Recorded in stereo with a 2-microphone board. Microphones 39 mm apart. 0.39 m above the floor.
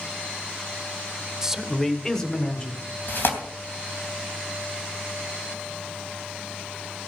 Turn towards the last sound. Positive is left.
turn(degrees=55)  # may be behind; listen again after turning